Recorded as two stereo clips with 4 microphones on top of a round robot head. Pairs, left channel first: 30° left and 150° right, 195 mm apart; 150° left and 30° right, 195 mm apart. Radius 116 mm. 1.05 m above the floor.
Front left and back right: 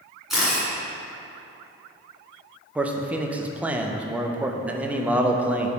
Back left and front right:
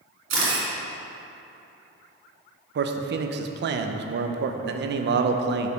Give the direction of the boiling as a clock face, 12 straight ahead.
I don't hear boiling.